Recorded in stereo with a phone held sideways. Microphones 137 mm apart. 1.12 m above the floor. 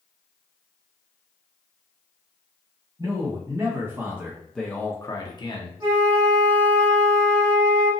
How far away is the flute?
About 1.3 m.